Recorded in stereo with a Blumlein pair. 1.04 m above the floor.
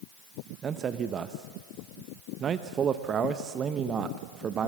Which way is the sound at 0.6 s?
25° right.